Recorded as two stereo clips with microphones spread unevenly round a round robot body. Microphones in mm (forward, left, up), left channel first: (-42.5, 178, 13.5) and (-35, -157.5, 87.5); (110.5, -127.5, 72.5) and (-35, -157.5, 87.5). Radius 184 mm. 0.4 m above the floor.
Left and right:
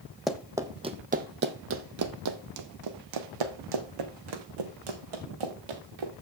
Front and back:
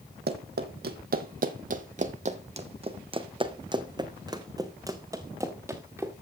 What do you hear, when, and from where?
0.3 s running footsteps: 175° right, 1.2 m; by 6.1 s 95° right, 3 m